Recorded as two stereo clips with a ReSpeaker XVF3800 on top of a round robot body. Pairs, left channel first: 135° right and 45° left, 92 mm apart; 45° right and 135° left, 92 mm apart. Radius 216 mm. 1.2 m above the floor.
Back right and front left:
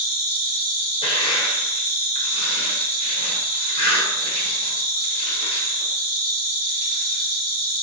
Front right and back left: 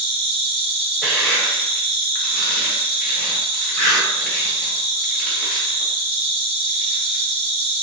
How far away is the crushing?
About 0.8 m.